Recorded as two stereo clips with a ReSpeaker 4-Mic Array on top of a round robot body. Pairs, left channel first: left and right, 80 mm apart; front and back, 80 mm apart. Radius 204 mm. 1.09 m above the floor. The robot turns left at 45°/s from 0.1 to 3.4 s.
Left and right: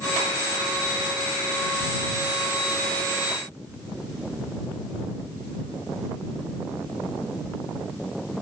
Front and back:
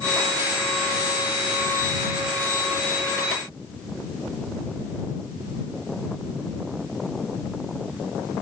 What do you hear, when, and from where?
Only background noise.